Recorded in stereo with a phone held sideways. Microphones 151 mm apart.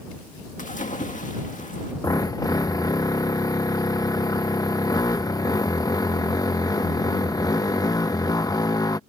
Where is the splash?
55° left (ahead or behind).